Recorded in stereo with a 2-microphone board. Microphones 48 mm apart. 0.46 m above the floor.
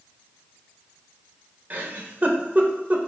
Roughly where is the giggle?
Right.